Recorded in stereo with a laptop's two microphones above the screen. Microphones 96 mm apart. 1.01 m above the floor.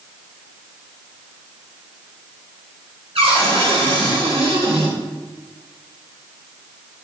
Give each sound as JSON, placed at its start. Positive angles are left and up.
{"t": 3.1, "sound": "a cupboard door", "side_deg": -85, "distance_m": 3.5}